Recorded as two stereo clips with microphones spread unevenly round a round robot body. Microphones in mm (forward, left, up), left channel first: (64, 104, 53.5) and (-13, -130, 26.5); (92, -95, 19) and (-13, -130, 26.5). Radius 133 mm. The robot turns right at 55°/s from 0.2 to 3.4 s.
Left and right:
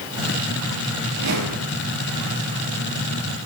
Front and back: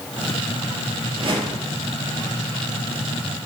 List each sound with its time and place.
1.1 s a whoosh: 140° right, 3 m; by 1.8 s 105° right, 3 m